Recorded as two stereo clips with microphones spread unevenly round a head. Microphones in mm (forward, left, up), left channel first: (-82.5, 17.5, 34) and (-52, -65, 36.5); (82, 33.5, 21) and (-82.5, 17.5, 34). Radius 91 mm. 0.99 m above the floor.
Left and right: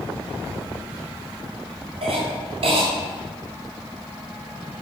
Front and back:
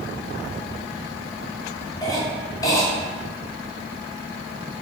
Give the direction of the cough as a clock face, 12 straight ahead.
2 o'clock.